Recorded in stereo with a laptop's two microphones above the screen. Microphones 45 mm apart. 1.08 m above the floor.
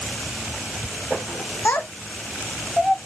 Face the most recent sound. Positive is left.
turn(degrees=15)  # may be behind; listen again after turning